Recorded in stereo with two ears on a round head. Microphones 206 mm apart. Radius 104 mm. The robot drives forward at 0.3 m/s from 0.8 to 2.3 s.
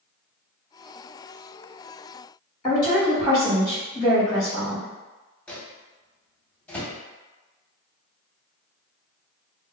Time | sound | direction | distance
2.6 | a woman speaking | 20° left (ahead or behind) | 1.7 m
5.5 | a microwave | 5° left (ahead or behind) | 0.6 m